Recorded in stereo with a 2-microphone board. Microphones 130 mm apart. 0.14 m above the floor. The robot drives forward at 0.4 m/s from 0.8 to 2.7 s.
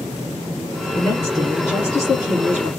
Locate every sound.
0.9 s a woman speaking: 30° left (ahead or behind), 1.7 m; by 2.7 s 25° left (ahead or behind), 2 m